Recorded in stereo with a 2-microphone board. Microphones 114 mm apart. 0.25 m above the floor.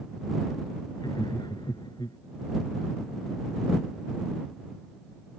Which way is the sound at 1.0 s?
40° left (ahead or behind).